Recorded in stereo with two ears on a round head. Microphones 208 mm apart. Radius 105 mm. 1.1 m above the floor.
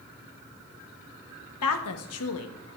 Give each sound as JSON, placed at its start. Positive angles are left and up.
{"t": 1.6, "sound": "a woman speaking", "side_deg": 75, "distance_m": 1.2}